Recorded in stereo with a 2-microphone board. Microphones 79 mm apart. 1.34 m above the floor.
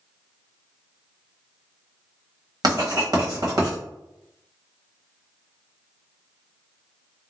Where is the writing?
55° right (ahead or behind), 1.2 m.